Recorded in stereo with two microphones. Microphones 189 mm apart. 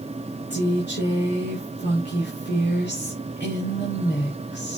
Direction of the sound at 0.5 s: 65° left (ahead or behind).